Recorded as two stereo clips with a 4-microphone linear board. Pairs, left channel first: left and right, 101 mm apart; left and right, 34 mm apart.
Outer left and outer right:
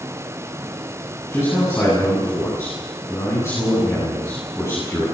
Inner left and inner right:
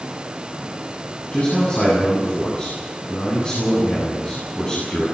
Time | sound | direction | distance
1.3 | a man speaking | 30° left (ahead or behind) | 9.5 m